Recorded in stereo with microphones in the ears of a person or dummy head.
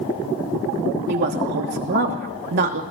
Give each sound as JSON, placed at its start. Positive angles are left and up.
{"t": 1.1, "sound": "a woman speaking", "side_deg": -55, "distance_m": 2.5}